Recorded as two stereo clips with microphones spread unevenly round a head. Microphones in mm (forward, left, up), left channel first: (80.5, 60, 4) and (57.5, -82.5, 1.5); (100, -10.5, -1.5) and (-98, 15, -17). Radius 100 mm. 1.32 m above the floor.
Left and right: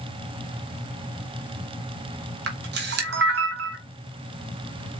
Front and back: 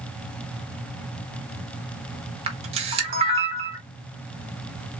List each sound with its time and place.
2.5 s a camera shutter: 125° right, 1.4 m